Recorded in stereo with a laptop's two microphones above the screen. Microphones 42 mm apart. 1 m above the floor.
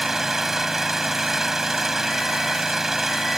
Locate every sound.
0.0 s an engine running: 5° right (ahead or behind)